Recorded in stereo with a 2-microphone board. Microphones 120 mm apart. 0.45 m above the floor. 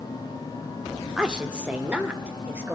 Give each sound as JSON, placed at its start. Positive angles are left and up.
{"t": 1.2, "sound": "a woman speaking", "side_deg": -5, "distance_m": 0.9}